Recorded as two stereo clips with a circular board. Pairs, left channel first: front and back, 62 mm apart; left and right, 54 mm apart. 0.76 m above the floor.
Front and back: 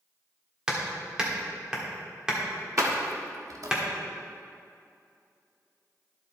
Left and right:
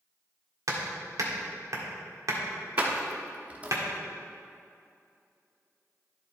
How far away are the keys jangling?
About 1.0 m.